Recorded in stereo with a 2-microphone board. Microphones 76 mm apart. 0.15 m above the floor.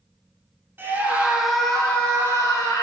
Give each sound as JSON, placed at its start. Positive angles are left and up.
{"t": 0.8, "sound": "a scream", "side_deg": -30, "distance_m": 1.3}